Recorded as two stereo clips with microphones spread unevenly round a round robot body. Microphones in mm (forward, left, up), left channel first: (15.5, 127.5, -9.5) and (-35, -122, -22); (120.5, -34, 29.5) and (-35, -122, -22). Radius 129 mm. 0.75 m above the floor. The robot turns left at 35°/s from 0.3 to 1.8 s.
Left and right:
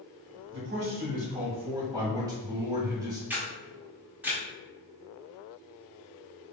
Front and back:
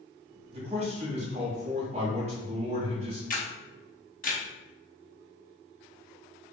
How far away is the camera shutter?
About 1.4 m.